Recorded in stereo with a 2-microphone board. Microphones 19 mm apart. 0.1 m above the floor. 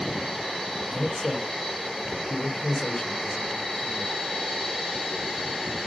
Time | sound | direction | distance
0.8 | a man speaking | 60° left (ahead or behind) | 3 m